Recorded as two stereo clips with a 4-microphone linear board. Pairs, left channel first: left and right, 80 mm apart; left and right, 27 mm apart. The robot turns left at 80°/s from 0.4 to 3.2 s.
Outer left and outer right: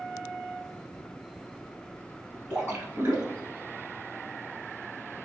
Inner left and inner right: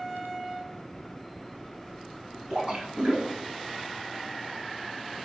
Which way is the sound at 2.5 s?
35° right.